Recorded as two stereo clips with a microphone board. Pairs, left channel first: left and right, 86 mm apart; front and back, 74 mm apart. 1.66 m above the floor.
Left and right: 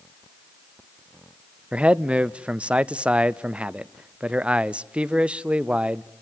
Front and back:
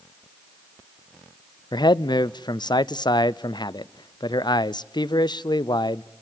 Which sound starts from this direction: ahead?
A man speaking, at 1.7 s.